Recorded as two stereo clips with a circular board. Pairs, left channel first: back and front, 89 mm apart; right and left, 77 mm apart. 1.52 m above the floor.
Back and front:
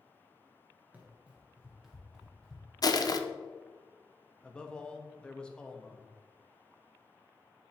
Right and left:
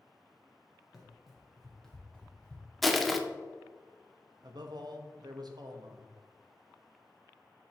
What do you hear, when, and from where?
0.9 s running footsteps: 15° left, 1.5 m; by 2.7 s 110° right, 1.5 m
2.8 s crushing: straight behind, 0.5 m
4.4 s a man speaking: 100° left, 0.9 m